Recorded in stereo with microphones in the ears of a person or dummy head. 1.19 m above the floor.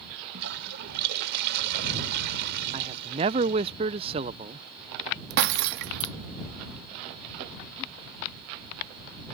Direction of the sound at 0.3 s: 60° right (ahead or behind).